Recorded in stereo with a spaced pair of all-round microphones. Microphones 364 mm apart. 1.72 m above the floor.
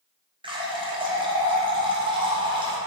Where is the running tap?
15° right (ahead or behind), 0.7 m.